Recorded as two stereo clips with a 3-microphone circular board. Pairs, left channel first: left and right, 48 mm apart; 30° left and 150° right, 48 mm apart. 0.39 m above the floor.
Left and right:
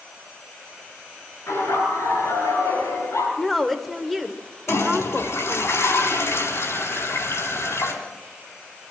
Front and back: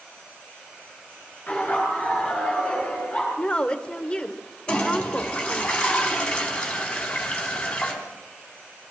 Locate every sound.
1.5 s laughter: 90° left, 5.5 m; by 3.3 s 100° left, 7 m
3.4 s a woman speaking: 5° right, 1.1 m
4.7 s a toilet flushing: 100° left, 4 m